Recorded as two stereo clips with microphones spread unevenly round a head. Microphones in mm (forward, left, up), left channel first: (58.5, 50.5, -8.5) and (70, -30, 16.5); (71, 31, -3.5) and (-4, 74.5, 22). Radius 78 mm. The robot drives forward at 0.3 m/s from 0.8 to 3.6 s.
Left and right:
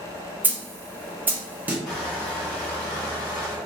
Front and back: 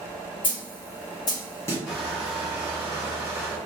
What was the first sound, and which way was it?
A snare drum, 65° right.